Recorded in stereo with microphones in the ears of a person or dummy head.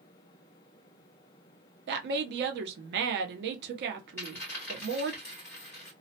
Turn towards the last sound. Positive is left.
turn(degrees=10)  # may be behind; listen again after turning